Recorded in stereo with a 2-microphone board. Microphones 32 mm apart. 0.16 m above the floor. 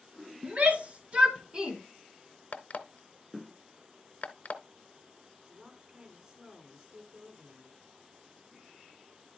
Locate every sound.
0.4 s a shout: 45° right (ahead or behind), 2 m; by 1.8 s 20° right (ahead or behind), 1.7 m
2.5 s an alarm clock: 55° left (ahead or behind), 0.8 m
5.5 s a woman speaking: 30° right (ahead or behind), 4.5 m